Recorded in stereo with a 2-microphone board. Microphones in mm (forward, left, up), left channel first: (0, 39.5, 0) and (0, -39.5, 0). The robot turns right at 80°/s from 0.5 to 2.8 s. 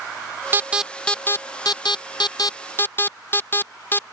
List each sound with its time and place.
0.5 s an alarm: 30° right (ahead or behind); by 4.0 s 30° left (ahead or behind)